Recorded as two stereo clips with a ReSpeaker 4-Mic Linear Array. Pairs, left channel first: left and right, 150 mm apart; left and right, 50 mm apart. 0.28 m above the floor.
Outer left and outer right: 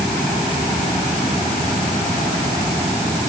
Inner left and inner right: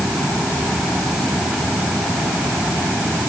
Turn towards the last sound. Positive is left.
No sound to turn to.